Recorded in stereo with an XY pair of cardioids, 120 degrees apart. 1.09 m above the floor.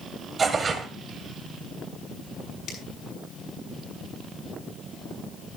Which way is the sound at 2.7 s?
70° left.